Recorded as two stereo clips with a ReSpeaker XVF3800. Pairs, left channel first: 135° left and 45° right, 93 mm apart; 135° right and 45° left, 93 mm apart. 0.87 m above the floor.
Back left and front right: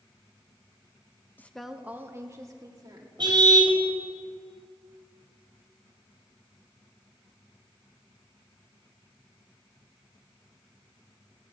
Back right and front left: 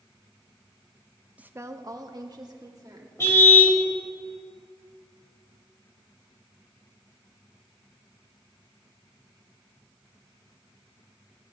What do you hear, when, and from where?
1.4 s a woman speaking: 95° left, 0.7 m; by 3.1 s straight ahead, 2 m
3.2 s a car horn: 75° right, 2.5 m